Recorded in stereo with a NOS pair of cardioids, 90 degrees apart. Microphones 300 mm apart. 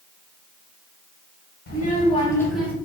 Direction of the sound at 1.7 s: 35° left.